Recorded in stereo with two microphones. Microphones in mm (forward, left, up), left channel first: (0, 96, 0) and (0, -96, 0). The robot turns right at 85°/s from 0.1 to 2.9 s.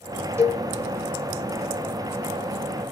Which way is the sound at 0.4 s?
15° right (ahead or behind).